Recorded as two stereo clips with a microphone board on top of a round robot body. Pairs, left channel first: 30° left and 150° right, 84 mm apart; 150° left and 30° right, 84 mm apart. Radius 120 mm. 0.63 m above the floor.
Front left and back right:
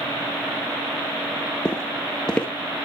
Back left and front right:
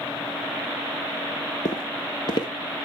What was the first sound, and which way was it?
Footsteps, 110° left.